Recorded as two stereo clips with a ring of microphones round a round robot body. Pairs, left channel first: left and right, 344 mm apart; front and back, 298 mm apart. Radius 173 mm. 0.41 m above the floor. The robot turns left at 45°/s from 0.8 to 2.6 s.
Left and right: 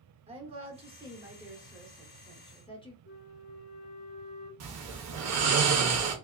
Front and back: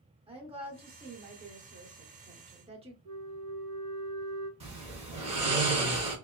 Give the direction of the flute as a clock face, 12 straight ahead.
7 o'clock.